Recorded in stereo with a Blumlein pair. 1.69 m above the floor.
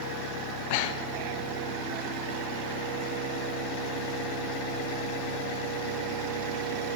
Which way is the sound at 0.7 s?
50° left.